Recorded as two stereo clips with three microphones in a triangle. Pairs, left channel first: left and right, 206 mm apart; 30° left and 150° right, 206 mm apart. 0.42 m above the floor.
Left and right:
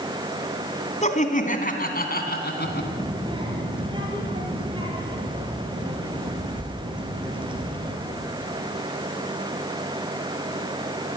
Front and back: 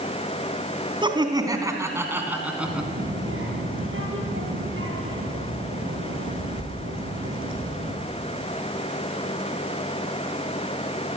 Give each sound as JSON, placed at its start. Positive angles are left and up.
{"t": 1.0, "sound": "laughter", "azimuth_deg": 145, "distance_m": 3.0}
{"t": 2.6, "sound": "a child speaking", "azimuth_deg": -155, "distance_m": 6.0}